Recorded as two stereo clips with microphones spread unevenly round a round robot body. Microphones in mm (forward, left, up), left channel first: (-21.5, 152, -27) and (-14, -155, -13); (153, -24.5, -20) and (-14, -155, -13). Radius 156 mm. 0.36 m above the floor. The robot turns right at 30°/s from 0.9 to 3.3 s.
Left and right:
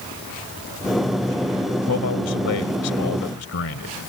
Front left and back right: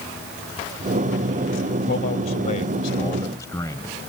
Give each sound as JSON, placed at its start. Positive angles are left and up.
{"t": 1.9, "sound": "a man speaking", "azimuth_deg": 70}